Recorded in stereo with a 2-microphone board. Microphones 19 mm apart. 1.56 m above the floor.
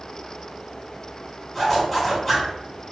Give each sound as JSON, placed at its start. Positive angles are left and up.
{"t": 1.5, "sound": "a zipper", "side_deg": 10, "distance_m": 1.5}